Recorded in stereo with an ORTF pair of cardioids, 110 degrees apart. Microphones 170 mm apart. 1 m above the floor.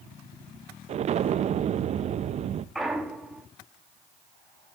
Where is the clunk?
Straight ahead, 1.8 m.